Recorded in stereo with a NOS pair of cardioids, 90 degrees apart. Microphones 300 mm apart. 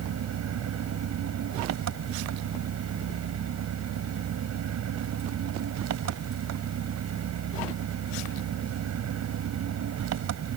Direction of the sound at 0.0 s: 65° right.